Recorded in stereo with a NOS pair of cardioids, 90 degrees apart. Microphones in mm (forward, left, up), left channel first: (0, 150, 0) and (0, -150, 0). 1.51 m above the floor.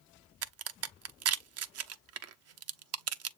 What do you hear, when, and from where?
0.4 s a crack: 55° right, 0.7 m